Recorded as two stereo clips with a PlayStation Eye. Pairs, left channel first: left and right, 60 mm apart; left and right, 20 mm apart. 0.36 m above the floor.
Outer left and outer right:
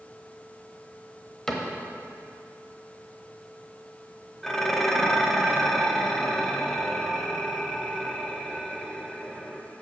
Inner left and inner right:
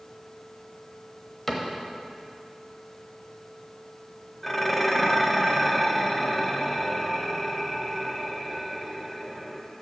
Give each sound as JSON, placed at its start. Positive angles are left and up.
{"t": 1.5, "sound": "a cupboard door", "side_deg": 10, "distance_m": 1.0}
{"t": 4.4, "sound": "dishes clattering", "side_deg": 5, "distance_m": 0.8}